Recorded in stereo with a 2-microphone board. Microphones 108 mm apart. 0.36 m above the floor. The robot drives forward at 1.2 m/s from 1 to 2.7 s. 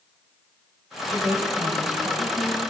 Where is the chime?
No chime in this recording.